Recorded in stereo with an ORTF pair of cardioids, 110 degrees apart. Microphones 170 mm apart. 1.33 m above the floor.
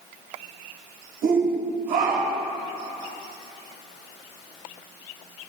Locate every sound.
1.2 s a shout: 65° right, 6.5 m